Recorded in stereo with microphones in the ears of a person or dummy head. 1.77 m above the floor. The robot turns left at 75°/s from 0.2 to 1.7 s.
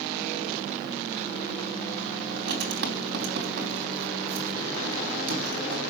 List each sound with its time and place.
2.3 s writing: 65° right (ahead or behind), 3.5 m